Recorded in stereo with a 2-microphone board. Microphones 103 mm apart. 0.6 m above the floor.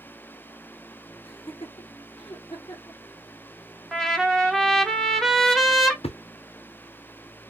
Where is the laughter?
60° left (ahead or behind), 1.9 m; by 3.0 s 45° left (ahead or behind), 1.7 m.